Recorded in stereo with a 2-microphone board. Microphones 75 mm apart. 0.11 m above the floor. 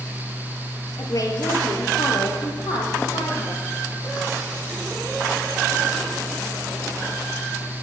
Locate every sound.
1.0 s a woman speaking: 50° left (ahead or behind), 2.5 m; by 3.6 s 70° left (ahead or behind), 5 m